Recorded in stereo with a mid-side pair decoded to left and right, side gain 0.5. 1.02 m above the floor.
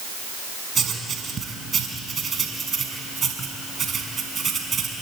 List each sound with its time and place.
0.8 s writing: 35° right, 5.5 m